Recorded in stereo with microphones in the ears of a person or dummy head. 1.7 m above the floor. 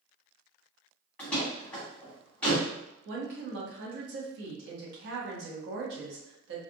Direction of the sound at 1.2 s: 15° left (ahead or behind).